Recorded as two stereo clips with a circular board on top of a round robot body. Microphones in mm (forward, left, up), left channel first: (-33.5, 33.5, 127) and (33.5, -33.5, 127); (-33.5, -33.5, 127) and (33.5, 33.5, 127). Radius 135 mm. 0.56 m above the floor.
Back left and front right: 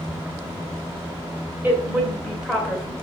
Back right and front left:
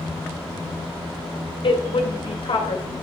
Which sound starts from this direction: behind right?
A woman speaking, at 1.6 s.